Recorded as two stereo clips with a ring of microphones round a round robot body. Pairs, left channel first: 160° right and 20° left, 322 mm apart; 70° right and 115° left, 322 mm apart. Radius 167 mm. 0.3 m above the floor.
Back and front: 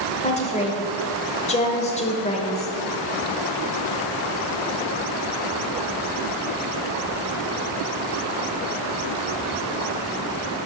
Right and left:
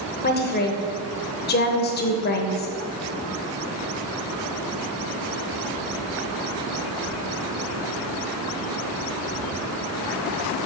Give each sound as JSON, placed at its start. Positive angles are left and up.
{"t": 0.2, "sound": "a woman speaking", "azimuth_deg": -105, "distance_m": 1.1}